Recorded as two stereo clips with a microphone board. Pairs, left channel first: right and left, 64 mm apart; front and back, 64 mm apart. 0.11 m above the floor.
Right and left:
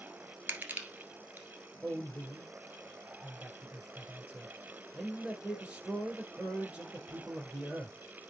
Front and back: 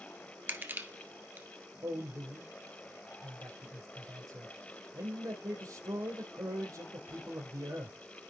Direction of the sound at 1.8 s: 160° left.